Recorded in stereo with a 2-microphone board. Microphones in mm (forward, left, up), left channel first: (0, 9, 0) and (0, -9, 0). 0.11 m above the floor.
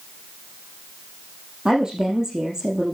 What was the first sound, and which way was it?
A woman speaking, 35° right (ahead or behind).